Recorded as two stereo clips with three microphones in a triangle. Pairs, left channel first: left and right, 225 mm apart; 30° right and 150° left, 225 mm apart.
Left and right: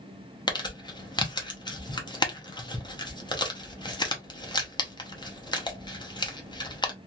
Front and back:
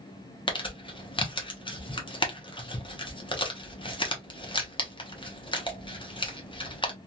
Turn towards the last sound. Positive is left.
turn(degrees=25)